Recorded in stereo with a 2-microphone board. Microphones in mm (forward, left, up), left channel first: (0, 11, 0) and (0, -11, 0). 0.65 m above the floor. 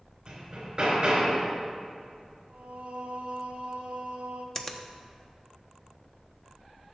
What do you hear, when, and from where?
0.3 s hammering: 45° right (ahead or behind), 3 m
2.5 s singing: 70° right (ahead or behind), 1.1 m
4.5 s a finger snap: 20° left (ahead or behind), 0.8 m